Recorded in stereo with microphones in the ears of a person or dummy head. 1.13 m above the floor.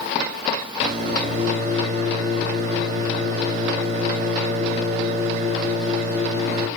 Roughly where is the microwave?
Right.